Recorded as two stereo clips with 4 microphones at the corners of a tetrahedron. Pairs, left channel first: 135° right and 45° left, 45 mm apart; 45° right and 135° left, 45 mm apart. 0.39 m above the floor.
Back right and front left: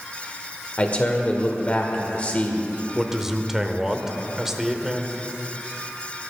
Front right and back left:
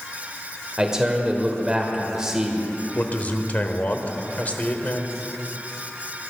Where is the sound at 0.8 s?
160° right, 1.6 m.